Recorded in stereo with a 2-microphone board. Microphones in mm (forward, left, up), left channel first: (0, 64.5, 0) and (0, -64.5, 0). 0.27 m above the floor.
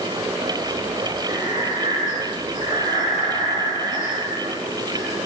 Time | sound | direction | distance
1.3 | breathing | 70° left (ahead or behind) | 6 m